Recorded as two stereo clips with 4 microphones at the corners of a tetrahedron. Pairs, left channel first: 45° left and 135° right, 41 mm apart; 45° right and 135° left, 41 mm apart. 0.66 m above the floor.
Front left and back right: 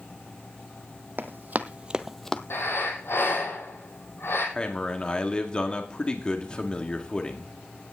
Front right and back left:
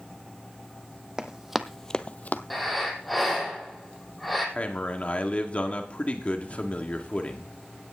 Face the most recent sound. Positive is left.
turn(degrees=-10)